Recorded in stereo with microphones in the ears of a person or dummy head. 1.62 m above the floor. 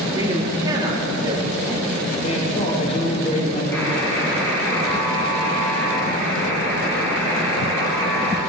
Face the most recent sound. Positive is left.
turn(degrees=15)  # may be behind; listen again after turning